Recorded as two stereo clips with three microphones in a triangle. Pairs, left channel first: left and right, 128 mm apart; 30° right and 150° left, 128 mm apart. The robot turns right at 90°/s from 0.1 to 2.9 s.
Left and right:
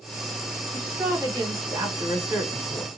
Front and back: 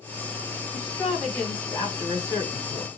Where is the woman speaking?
165° right, 1.5 m; by 2.9 s 30° left, 1.5 m.